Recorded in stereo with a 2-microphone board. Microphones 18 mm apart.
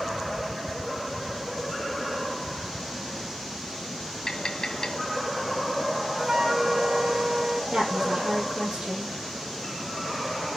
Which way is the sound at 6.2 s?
20° right (ahead or behind).